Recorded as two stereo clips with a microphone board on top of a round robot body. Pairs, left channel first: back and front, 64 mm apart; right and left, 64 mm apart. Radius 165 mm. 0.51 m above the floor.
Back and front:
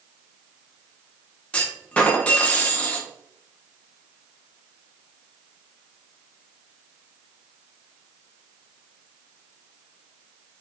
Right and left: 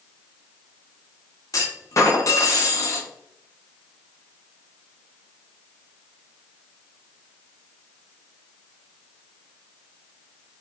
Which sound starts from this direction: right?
A clunk, at 1.5 s.